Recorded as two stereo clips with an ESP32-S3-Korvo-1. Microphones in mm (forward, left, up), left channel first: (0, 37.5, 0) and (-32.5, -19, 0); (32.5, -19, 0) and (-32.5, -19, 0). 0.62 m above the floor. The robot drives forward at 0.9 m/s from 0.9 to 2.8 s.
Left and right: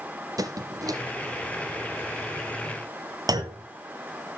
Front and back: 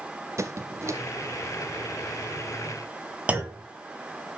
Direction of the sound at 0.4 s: 140° right.